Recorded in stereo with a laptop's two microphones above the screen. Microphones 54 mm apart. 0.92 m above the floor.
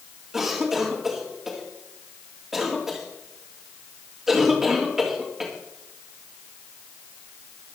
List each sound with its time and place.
0.3 s a cough: 10° right (ahead or behind), 2.5 m